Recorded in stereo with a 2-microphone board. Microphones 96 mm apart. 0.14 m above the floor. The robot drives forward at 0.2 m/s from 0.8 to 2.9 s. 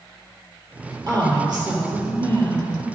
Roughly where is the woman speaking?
Right.